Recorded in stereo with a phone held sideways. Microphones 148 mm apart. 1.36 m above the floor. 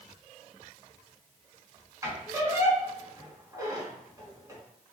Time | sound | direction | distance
2.0 | a squeak | 25° right (ahead or behind) | 1.3 m